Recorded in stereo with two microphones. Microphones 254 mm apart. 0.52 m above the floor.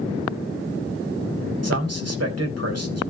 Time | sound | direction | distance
1.6 | a man speaking | 65° right (ahead or behind) | 3 m